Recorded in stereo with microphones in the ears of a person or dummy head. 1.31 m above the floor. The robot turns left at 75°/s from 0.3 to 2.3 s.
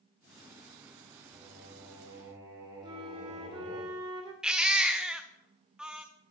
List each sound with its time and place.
1.3 s singing: 20° right, 2.0 m; by 3.8 s 95° right, 2.0 m
2.8 s a flute: 20° right (ahead or behind), 0.6 m
4.4 s a baby crying: 5° right (ahead or behind), 0.5 m